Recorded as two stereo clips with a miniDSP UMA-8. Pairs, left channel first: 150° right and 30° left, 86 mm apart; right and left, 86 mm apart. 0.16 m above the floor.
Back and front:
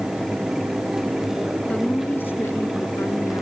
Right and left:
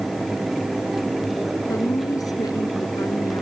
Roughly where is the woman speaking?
Right.